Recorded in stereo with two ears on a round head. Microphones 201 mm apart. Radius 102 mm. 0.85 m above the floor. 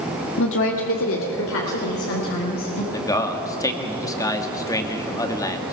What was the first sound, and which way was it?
A woman speaking, 60° left (ahead or behind).